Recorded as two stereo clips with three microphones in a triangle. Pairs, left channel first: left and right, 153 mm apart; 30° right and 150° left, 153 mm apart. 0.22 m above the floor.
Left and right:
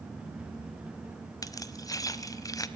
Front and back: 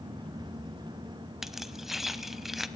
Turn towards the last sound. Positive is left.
turn(degrees=65)